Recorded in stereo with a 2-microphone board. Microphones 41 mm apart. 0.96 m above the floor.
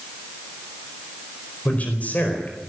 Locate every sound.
1.6 s a man speaking: 40° left (ahead or behind), 4.5 m